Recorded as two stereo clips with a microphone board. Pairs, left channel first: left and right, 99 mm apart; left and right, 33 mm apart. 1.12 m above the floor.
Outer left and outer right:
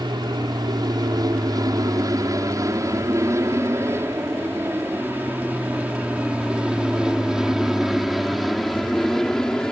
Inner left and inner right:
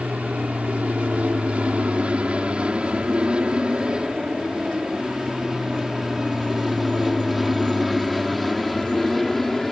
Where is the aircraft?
45° right (ahead or behind); by 9.7 s 5° left (ahead or behind).